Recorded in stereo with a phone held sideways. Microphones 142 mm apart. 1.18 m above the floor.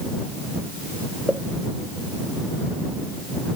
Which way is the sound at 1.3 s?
5° right (ahead or behind).